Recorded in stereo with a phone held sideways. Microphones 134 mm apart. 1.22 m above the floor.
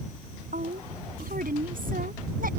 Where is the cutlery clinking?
No cutlery clinking in this recording.